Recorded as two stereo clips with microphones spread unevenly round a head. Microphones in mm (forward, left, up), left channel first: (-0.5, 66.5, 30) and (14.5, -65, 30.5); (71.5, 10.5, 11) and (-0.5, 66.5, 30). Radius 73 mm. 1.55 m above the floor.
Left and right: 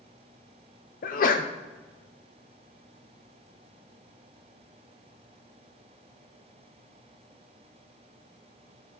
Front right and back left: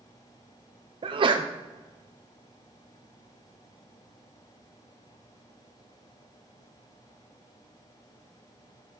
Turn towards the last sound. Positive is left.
turn(degrees=110)